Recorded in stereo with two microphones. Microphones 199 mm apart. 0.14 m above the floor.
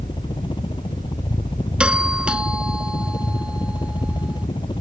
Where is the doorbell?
5° right (ahead or behind).